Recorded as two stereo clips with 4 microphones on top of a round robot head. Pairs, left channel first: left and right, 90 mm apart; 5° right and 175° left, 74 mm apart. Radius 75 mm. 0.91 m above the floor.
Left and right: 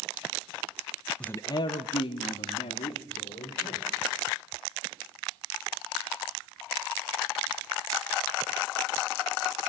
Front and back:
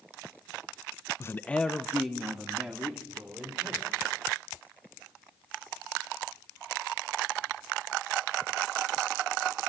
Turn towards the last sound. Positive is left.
turn(degrees=95)